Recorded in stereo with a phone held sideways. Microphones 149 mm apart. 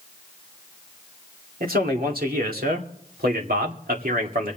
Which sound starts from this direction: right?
A man speaking, at 1.6 s.